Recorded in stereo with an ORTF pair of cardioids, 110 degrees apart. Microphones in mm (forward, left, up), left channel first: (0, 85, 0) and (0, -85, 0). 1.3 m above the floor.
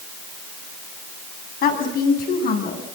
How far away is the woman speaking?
About 8.5 m.